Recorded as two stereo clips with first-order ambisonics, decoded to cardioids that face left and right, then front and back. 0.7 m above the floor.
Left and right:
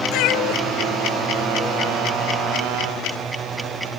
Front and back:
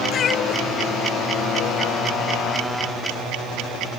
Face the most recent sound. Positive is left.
turn(degrees=25)